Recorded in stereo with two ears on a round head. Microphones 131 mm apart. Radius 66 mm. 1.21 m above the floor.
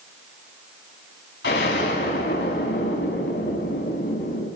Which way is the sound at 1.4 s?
85° left.